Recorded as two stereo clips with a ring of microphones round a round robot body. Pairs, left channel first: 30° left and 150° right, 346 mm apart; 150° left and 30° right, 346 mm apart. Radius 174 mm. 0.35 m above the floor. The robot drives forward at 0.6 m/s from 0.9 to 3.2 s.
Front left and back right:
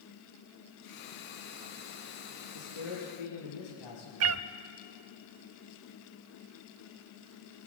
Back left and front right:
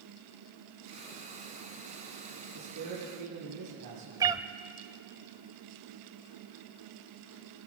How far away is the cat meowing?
About 0.6 m.